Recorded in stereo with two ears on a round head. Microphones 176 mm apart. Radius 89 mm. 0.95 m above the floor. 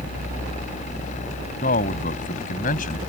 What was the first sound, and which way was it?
A man speaking, 40° left (ahead or behind).